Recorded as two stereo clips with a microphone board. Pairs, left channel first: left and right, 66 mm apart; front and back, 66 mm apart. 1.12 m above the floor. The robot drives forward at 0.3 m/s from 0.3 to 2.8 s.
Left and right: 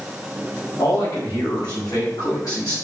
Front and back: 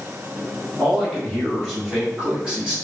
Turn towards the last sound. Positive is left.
turn(degrees=110)